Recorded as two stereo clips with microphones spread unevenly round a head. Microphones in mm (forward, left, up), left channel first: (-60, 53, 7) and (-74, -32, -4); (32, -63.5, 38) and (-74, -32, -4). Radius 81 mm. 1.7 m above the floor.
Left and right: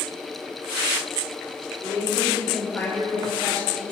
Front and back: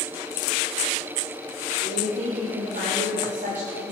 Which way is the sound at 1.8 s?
140° left.